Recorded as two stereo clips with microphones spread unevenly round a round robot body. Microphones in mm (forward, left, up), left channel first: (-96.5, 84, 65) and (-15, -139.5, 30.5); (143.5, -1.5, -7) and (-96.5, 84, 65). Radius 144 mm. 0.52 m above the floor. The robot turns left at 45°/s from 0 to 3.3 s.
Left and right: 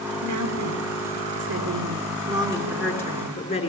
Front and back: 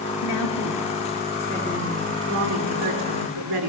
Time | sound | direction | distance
0.2 | a woman speaking | 45° right | 6.5 m